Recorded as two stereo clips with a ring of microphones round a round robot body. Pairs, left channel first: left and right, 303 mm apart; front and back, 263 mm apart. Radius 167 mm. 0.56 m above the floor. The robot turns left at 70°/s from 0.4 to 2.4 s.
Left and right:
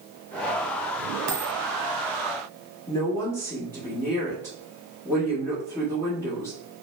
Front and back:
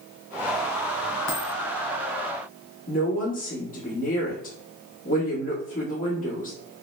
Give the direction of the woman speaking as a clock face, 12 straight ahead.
12 o'clock.